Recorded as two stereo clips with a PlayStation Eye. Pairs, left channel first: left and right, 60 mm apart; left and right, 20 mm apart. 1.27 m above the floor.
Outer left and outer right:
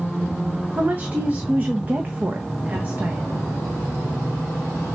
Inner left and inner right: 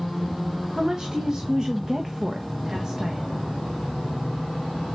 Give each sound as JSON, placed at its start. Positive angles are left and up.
{"t": 0.8, "sound": "a woman speaking", "side_deg": -30, "distance_m": 1.3}